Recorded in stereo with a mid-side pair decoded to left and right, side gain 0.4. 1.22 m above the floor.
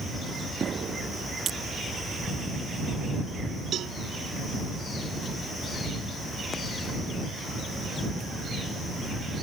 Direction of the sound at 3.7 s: 70° right.